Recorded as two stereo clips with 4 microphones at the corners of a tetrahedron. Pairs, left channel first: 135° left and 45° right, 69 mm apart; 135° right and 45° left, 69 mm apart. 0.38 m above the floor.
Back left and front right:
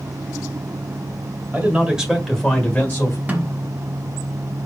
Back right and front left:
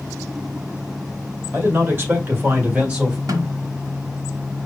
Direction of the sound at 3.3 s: 20° left.